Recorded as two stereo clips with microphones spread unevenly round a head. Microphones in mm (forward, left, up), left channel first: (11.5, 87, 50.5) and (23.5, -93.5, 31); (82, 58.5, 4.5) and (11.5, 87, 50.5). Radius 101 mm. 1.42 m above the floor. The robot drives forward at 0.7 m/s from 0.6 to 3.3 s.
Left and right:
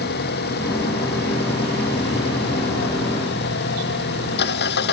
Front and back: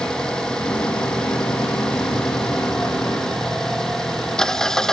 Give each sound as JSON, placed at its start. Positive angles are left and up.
{"t": 0.0, "sound": "an engine running", "azimuth_deg": 60}